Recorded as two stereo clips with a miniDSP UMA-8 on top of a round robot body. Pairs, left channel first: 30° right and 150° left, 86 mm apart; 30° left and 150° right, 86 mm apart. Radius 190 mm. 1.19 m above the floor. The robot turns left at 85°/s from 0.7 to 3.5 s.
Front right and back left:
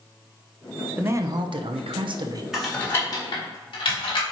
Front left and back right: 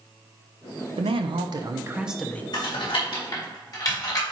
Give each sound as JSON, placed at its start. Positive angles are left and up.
{"t": 1.0, "sound": "a man speaking", "azimuth_deg": -135, "distance_m": 0.8}
{"t": 2.5, "sound": "typing on a keyboard", "azimuth_deg": 70, "distance_m": 2.5}